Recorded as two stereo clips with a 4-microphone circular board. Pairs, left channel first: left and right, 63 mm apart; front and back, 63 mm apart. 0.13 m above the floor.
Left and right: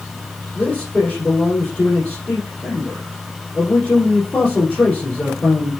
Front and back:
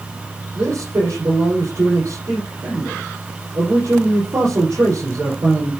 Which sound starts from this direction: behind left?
A man speaking, at 0.6 s.